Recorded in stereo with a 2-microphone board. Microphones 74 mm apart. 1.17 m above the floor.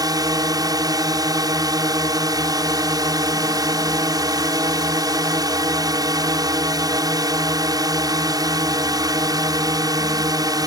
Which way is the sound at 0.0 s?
60° right (ahead or behind).